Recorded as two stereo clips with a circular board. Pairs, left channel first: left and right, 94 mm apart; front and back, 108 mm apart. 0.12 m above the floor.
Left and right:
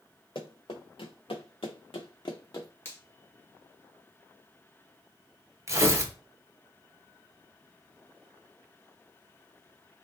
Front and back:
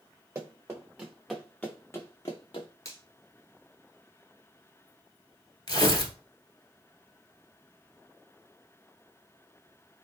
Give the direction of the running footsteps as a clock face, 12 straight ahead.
8 o'clock.